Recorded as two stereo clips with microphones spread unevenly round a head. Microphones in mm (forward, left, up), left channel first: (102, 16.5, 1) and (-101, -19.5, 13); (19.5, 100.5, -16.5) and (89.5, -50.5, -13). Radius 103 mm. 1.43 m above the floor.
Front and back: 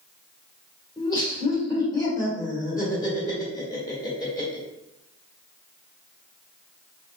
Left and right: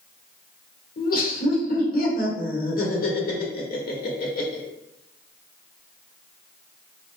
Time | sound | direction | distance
1.0 | laughter | 80° left | 1.3 m